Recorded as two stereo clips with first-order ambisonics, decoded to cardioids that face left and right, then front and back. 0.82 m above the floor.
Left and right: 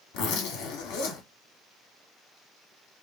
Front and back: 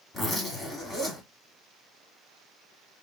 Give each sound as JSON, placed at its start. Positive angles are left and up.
{"t": 0.1, "sound": "a zipper", "azimuth_deg": 80, "distance_m": 2.0}